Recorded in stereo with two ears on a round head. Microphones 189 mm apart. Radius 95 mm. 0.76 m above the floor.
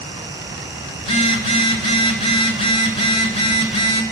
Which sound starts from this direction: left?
A phone buzzing, at 1.0 s.